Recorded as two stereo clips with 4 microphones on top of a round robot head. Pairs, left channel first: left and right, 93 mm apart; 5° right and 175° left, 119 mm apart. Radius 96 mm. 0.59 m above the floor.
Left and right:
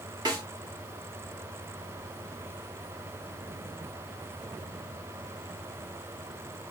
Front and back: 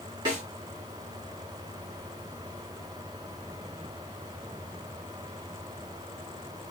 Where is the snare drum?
130° right, 2.5 m.